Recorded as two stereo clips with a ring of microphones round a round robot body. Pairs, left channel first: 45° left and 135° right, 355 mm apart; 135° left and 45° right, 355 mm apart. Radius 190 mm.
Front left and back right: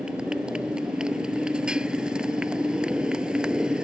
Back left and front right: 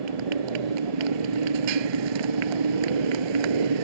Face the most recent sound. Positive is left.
turn(degrees=-45)